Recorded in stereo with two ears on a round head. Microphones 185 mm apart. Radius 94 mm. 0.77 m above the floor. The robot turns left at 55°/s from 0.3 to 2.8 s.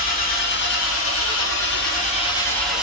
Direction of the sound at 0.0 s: 135° left.